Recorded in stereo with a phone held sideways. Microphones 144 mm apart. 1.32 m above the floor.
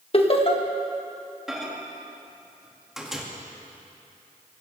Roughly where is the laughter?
Left.